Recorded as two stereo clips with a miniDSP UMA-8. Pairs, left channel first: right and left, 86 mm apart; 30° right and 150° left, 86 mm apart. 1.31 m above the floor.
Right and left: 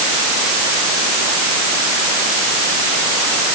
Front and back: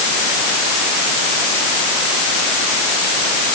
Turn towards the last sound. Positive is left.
No sound to turn to.